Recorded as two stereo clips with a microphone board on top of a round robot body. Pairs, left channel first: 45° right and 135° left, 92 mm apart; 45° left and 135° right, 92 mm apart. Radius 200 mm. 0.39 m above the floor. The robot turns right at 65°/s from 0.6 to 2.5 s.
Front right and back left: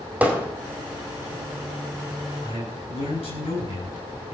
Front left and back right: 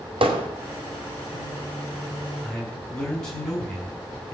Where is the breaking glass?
No breaking glass in this recording.